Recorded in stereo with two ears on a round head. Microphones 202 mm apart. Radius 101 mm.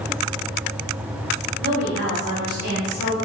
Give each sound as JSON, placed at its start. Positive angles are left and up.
{"t": 1.6, "sound": "a woman speaking", "side_deg": -35, "distance_m": 1.5}